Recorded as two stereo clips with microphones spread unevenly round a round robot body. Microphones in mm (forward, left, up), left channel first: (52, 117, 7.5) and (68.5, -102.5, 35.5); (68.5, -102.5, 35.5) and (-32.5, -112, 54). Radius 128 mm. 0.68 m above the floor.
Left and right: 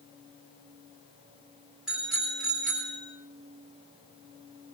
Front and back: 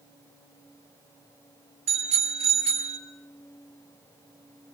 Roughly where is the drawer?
No drawer in this recording.